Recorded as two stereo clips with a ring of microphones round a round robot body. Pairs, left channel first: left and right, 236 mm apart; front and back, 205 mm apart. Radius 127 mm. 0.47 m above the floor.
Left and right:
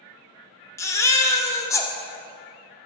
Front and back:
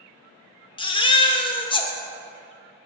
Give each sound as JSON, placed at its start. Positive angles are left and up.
{"t": 0.8, "sound": "a baby crying", "azimuth_deg": 25, "distance_m": 0.8}